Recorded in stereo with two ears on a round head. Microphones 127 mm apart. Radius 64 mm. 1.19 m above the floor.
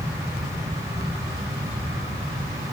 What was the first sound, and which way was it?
Only background noise.